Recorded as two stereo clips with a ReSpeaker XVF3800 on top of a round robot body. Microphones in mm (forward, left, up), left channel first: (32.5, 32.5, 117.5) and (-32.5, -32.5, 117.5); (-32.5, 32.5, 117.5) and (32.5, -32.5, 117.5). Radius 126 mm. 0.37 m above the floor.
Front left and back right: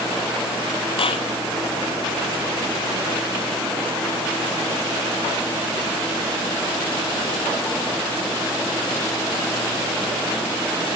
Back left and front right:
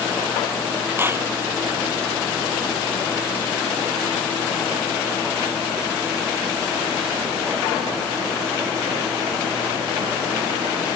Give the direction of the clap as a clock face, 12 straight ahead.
11 o'clock.